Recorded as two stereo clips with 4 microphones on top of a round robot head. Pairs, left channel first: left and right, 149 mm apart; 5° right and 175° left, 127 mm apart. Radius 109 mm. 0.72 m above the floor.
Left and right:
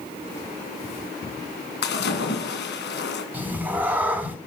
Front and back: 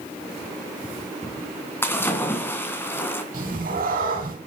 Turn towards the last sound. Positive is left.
turn(degrees=-170)